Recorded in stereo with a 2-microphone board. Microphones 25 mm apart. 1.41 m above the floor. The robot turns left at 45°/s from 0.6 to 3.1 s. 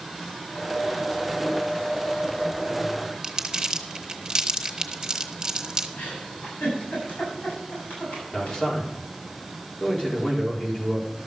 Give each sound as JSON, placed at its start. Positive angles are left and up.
{"t": 3.2, "sound": "crumpling", "side_deg": -30, "distance_m": 1.3}
{"t": 6.0, "sound": "a giggle", "side_deg": 85, "distance_m": 7.5}
{"t": 8.3, "sound": "a man speaking", "side_deg": 35, "distance_m": 4.5}